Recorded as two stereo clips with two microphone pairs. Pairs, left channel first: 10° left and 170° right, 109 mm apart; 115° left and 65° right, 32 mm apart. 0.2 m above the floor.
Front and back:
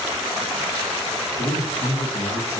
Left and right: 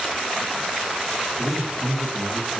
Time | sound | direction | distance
1.4 | a man speaking | 15° left | 4.5 m